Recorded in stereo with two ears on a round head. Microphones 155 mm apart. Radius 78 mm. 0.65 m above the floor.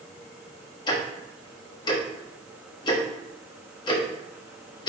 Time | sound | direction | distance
0.9 | ticking | 25° left (ahead or behind) | 1.2 m